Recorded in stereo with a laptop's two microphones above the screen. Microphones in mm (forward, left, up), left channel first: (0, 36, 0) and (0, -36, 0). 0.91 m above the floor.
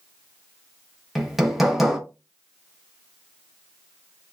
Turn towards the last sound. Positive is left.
turn(degrees=0)  # may be behind; listen again after turning